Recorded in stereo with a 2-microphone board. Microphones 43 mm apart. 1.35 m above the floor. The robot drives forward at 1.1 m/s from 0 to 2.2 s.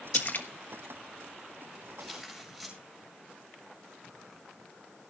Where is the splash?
40° left (ahead or behind), 1.4 m; by 0.5 s 50° left (ahead or behind), 1.2 m.